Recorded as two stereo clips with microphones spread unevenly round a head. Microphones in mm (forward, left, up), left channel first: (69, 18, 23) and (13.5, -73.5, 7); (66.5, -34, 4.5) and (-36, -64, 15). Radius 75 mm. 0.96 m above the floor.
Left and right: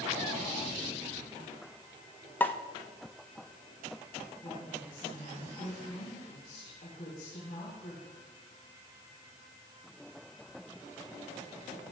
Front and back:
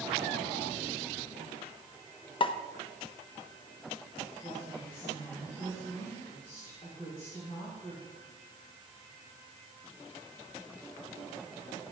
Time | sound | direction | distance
2.4 | a pop | 15° right | 0.8 m
4.4 | a woman speaking | 70° left | 5 m